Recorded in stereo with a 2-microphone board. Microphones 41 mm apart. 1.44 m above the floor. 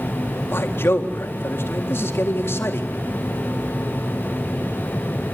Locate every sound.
0.5 s a man speaking: 70° left (ahead or behind), 3.5 m